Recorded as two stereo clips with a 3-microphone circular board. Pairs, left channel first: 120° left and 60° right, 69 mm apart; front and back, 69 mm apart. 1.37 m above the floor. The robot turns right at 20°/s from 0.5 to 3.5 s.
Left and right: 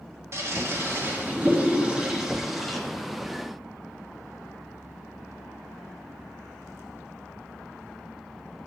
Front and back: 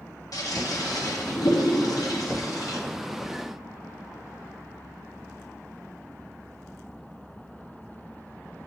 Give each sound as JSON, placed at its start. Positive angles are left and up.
{"t": 0.3, "sound": "a toilet flushing", "azimuth_deg": -15, "distance_m": 0.9}